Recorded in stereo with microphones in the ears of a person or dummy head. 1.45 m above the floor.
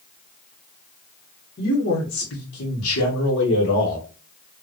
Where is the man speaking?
50° left (ahead or behind), 1.9 m.